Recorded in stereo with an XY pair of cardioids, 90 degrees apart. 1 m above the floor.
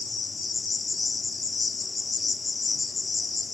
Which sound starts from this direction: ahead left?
An insect, at 0.0 s.